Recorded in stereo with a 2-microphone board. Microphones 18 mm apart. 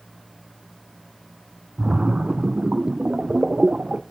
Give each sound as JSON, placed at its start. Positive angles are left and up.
{"t": 1.8, "sound": "a splash", "side_deg": -80, "distance_m": 0.6}